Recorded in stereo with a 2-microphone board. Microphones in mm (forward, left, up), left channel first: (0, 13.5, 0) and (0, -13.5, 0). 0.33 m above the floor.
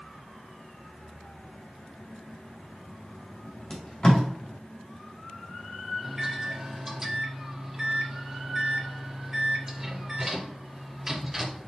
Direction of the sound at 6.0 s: 15° right (ahead or behind).